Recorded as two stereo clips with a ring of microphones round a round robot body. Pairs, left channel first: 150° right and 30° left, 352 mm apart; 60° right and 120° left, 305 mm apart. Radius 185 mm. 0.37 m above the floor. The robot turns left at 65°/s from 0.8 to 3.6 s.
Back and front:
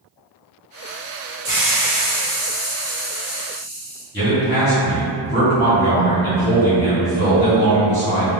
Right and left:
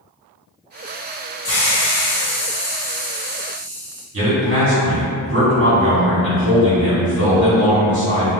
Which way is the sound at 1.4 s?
45° right.